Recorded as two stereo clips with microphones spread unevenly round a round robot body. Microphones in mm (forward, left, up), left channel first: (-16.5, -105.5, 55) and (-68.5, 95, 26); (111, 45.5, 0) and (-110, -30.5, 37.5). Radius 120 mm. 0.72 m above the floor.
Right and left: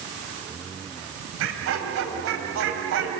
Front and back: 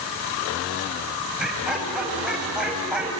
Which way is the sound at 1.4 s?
110° left.